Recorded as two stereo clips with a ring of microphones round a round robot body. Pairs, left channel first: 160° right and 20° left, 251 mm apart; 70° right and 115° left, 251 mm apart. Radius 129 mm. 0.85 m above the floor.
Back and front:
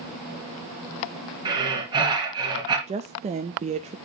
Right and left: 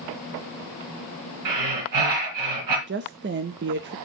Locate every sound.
1.4 s breathing: 95° left, 3.5 m
2.9 s a woman speaking: 80° left, 0.5 m